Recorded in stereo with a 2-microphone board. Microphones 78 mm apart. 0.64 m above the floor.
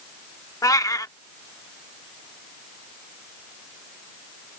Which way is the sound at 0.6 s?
50° left (ahead or behind).